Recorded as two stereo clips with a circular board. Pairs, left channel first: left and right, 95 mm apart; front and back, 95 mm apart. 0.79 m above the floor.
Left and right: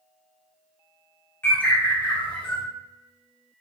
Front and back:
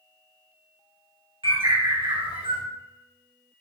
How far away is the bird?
About 3.5 m.